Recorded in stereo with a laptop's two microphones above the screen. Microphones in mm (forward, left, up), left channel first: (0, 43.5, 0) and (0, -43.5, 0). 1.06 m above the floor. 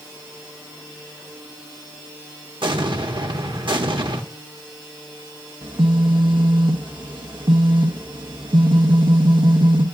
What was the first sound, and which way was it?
An explosion, 65° right (ahead or behind).